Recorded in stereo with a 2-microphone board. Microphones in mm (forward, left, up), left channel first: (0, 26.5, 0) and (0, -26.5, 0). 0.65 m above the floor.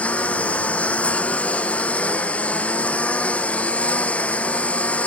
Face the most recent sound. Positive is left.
turn(degrees=30)  # may be behind; listen again after turning